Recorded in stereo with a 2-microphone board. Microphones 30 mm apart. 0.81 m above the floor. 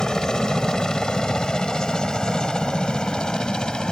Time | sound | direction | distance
0.0 | a helicopter | 30° left (ahead or behind) | ?